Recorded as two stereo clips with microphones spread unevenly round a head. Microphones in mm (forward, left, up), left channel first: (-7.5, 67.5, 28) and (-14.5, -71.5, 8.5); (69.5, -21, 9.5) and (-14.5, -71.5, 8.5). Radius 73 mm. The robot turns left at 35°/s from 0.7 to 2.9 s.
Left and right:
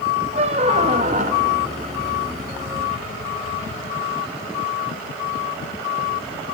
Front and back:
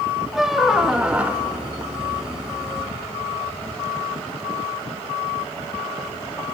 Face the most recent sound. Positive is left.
turn(degrees=-145)